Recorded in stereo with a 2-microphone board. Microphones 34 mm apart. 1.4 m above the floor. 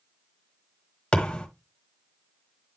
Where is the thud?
35° left (ahead or behind), 1.4 m.